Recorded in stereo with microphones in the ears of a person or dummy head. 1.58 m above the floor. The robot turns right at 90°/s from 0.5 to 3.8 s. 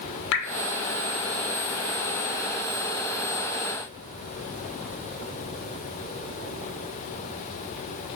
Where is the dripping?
65° left (ahead or behind), 0.8 m.